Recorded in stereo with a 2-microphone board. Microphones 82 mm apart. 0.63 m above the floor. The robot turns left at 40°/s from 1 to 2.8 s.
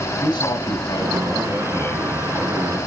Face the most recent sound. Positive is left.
turn(degrees=-15)